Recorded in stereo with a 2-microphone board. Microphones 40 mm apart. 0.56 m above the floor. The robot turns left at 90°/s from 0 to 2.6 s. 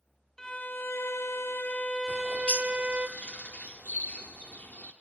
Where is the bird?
45° left (ahead or behind), 1.1 m; by 4.9 s 40° left (ahead or behind), 1.1 m.